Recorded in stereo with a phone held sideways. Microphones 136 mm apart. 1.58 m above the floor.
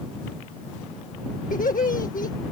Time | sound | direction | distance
1.5 | laughter | 80° left | ?